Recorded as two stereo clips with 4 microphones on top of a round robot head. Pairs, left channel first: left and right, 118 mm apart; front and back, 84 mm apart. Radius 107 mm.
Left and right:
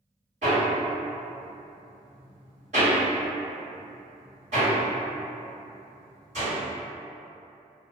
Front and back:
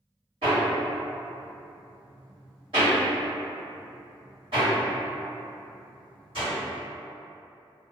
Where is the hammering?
130° right, 1.4 m.